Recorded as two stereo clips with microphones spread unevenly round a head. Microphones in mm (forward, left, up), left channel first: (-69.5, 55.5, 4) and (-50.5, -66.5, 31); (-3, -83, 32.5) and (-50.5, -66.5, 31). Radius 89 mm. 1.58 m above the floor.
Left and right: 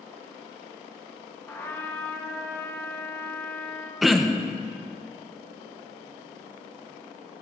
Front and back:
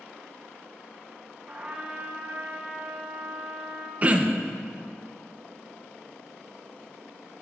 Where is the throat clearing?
155° right, 0.6 m.